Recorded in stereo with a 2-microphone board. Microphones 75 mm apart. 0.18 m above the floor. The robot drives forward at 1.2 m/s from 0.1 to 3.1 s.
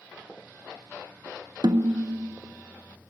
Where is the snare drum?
65° right (ahead or behind), 0.7 m; by 2.4 s 45° right (ahead or behind), 1.0 m.